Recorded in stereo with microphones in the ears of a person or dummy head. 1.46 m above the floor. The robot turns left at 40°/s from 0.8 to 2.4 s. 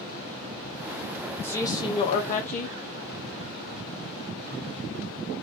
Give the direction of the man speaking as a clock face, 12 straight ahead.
6 o'clock.